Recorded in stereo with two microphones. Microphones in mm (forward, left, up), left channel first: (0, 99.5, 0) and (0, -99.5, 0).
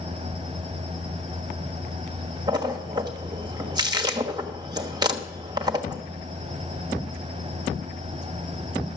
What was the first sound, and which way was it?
A splash, 20° right (ahead or behind).